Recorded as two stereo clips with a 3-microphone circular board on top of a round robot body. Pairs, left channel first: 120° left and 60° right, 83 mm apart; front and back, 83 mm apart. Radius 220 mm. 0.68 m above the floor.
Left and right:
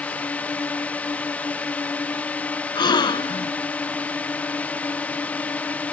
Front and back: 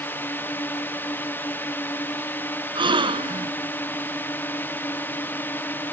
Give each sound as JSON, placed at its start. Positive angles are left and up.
{"t": 0.0, "sound": "a drone", "azimuth_deg": 55}
{"t": 2.8, "sound": "a gasp", "azimuth_deg": 155}